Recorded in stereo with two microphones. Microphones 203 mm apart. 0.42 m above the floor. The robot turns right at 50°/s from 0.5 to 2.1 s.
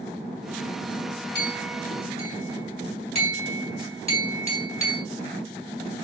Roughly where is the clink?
Left.